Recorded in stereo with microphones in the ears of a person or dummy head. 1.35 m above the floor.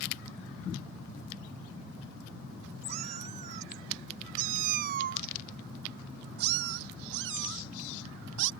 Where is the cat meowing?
40° right (ahead or behind); by 8.5 s 65° right (ahead or behind).